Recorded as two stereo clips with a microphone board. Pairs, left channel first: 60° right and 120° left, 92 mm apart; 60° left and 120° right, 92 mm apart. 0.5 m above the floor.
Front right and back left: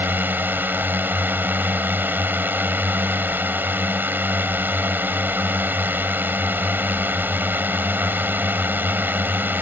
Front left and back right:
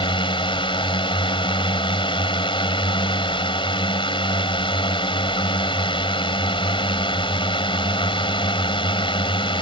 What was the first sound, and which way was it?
A drone, 55° left.